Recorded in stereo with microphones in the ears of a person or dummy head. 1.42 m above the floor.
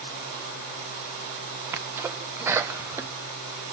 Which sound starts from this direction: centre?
A sneeze, at 1.7 s.